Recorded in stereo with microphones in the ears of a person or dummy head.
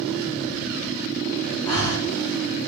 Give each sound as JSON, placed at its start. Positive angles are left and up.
{"t": 1.6, "sound": "breathing", "side_deg": 20, "distance_m": 1.4}